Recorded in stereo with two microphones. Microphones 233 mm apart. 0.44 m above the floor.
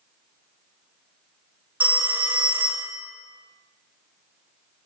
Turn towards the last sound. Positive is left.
turn(degrees=-5)  # may be behind; listen again after turning